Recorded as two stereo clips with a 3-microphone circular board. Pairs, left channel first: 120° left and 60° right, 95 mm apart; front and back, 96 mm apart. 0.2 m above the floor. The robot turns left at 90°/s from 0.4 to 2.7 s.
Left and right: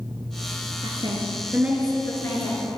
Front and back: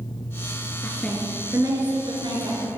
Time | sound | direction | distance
0.8 | a woman speaking | 60° right | 2.5 m